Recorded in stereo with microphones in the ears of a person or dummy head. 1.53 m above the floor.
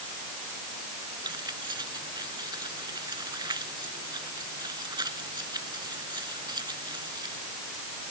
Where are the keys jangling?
20° right (ahead or behind).